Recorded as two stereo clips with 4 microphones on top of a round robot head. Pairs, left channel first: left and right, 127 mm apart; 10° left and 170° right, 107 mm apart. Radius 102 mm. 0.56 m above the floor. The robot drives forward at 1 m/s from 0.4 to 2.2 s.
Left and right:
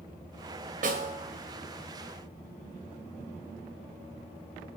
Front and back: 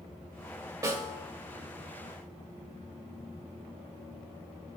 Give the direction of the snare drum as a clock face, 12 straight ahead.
4 o'clock.